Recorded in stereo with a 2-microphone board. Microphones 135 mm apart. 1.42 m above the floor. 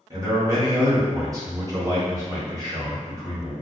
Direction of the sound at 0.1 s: 25° right (ahead or behind).